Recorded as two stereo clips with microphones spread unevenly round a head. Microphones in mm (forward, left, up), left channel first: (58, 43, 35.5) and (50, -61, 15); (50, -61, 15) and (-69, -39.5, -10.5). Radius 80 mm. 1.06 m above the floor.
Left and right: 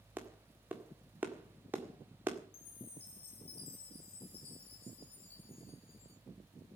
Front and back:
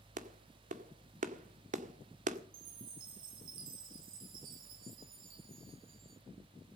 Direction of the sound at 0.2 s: 175° right.